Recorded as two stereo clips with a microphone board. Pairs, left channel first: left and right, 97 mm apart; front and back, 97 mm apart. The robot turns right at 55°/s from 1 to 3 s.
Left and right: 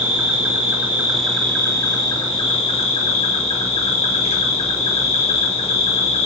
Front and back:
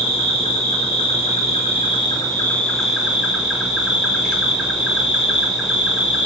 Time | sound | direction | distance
0.0 | an insect | 15° right | 1.1 m